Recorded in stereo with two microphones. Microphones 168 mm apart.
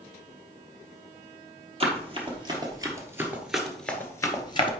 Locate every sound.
1.8 s running footsteps: 35° right (ahead or behind), 2.0 m; by 4.7 s 30° left (ahead or behind), 1.2 m